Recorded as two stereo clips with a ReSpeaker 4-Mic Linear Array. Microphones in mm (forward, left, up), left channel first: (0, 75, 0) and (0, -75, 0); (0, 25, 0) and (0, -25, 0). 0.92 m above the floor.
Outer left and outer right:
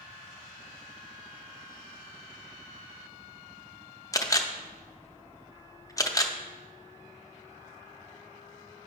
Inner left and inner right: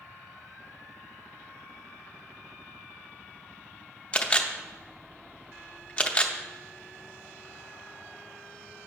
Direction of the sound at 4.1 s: 25° left (ahead or behind).